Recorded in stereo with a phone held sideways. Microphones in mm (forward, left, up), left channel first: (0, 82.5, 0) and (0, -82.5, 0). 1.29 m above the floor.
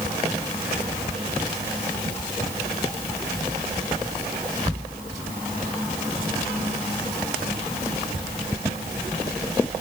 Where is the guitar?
I don't hear a guitar.